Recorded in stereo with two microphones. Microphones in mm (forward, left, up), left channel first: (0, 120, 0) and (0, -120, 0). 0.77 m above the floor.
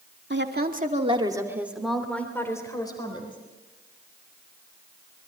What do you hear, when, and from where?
0.3 s a woman speaking: 50° right (ahead or behind), 2.5 m; by 3.4 s 20° left (ahead or behind), 4.5 m